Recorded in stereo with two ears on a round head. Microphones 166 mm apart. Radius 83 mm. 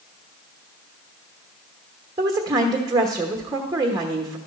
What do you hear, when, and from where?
2.2 s a woman speaking: 20° right (ahead or behind), 1.1 m